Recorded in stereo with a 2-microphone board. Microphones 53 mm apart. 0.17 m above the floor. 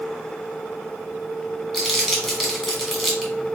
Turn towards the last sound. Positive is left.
turn(degrees=0)  # may be behind; listen again after turning